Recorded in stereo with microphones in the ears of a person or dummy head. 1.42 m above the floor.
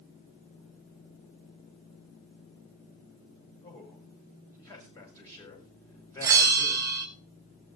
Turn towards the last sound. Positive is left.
turn(degrees=-15)  # may be behind; listen again after turning